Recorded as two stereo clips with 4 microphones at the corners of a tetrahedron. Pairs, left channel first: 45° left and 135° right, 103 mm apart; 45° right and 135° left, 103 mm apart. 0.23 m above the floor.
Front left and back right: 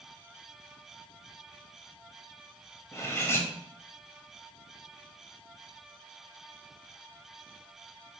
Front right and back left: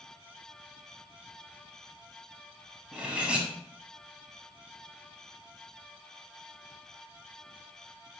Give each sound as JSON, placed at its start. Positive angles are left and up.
{"t": 2.9, "sound": "cutlery clinking", "azimuth_deg": 70, "distance_m": 0.6}